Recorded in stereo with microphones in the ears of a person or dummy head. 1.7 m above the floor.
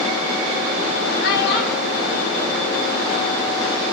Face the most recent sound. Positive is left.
turn(degrees=65)  # may be behind; listen again after turning